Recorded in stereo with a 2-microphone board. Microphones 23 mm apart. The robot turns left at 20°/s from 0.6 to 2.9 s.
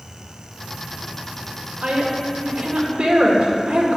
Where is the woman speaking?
80° right, 2 m; by 4.0 s 60° right (ahead or behind), 2 m.